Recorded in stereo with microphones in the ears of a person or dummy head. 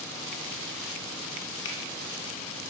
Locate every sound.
1.6 s a finger snap: 75° left (ahead or behind), 1.4 m